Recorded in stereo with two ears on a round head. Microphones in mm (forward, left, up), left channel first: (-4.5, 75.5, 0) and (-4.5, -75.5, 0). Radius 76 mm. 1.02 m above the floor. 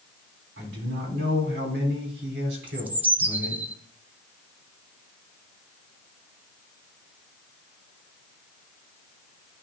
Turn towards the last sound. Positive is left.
turn(degrees=-10)  # may be behind; listen again after turning